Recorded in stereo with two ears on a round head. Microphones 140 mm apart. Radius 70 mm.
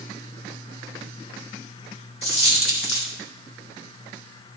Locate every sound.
2.2 s a dropped coin: 40° left (ahead or behind), 1.8 m